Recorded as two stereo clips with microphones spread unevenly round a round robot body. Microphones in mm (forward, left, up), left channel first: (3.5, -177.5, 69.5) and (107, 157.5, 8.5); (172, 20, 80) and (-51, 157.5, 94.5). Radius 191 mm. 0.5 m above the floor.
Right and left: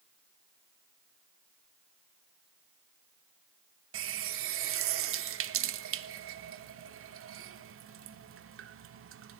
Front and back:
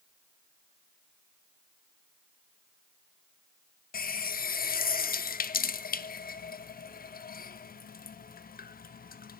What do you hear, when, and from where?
3.9 s a running tap: 25° left, 0.6 m